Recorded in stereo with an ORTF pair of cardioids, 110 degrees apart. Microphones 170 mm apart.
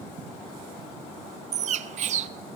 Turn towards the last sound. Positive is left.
turn(degrees=-45)